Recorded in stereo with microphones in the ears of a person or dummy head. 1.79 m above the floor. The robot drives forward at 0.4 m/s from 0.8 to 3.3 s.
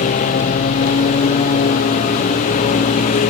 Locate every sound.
0.0 s a lawn mower: 40° left (ahead or behind)